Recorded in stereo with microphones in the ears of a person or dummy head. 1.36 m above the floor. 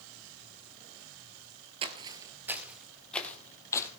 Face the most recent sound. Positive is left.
turn(degrees=20)  # may be behind; listen again after turning